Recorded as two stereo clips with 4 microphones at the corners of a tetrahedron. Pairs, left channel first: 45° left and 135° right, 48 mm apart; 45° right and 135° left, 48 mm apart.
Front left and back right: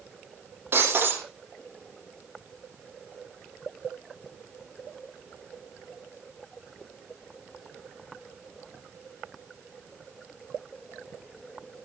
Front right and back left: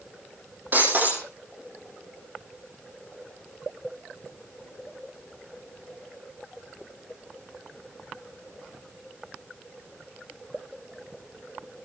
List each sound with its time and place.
0.7 s breaking glass: straight behind, 8 m